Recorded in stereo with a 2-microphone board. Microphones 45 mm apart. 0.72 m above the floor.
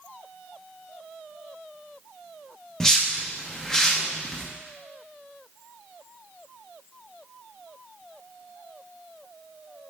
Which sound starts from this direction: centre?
A whoosh, at 2.8 s.